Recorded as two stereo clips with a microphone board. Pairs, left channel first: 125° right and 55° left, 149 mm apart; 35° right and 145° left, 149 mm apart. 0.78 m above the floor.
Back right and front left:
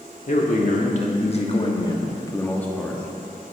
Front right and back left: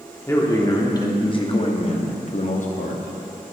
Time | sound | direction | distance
0.3 | a man speaking | 105° right | 1.5 m